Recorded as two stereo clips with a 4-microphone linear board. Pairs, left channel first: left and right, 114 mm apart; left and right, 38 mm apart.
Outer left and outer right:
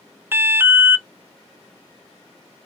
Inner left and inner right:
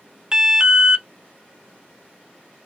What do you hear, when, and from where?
0.3 s an alarm: 20° right (ahead or behind), 0.6 m